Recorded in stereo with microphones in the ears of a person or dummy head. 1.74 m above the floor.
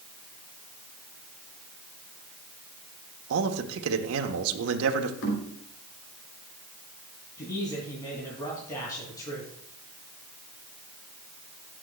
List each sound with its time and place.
3.3 s a man speaking: 75° right (ahead or behind), 1.3 m
5.2 s knocking: 75° left (ahead or behind), 3.5 m
7.4 s a man speaking: 20° left (ahead or behind), 3.5 m